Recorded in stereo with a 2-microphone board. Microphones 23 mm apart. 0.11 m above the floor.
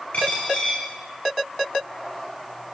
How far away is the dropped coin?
About 3.5 m.